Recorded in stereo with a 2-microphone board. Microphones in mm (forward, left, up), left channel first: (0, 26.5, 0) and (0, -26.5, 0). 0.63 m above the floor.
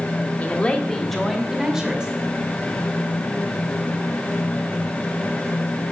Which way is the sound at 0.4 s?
30° left (ahead or behind).